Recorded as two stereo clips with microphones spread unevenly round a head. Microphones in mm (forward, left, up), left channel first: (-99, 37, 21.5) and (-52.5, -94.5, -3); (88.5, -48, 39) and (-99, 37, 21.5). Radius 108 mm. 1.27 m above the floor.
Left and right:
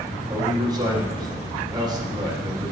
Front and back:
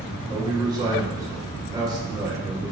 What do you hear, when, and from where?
0.3 s a man speaking: 135° right, 2 m